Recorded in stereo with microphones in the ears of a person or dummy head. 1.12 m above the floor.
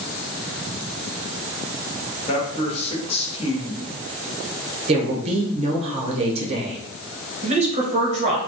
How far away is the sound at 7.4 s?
About 0.7 m.